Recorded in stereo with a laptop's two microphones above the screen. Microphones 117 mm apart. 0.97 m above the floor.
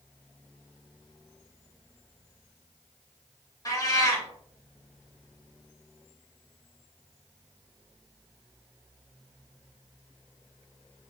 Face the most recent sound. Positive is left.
turn(degrees=30)  # may be behind; listen again after turning